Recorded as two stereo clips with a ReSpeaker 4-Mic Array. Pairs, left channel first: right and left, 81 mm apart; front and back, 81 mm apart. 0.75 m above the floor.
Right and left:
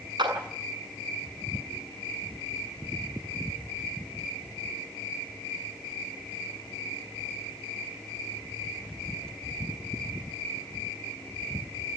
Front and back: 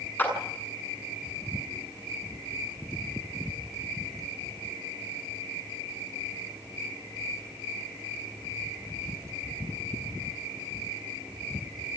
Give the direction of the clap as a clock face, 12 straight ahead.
10 o'clock.